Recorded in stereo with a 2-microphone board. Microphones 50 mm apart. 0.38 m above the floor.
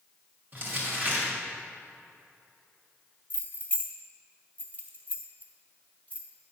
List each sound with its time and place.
0.5 s crumpling: 40° right (ahead or behind), 2 m
3.3 s keys jangling: 30° left (ahead or behind), 1.2 m